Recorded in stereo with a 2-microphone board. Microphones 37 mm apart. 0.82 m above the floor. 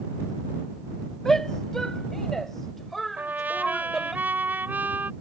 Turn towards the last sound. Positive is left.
turn(degrees=-60)  # may be behind; listen again after turning